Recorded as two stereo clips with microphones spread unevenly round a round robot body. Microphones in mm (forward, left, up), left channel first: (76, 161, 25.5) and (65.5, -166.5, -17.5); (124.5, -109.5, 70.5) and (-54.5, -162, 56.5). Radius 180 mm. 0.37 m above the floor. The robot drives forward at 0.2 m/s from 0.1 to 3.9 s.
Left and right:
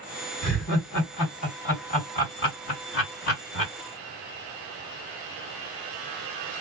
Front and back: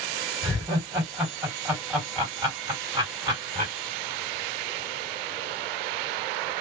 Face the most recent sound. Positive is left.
turn(degrees=140)